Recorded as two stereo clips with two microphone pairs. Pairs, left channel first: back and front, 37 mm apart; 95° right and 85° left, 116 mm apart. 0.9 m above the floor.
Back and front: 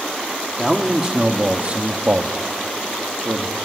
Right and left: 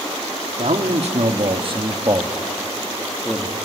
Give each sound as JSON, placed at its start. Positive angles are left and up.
{"t": 0.6, "sound": "a man speaking", "azimuth_deg": 75, "distance_m": 2.0}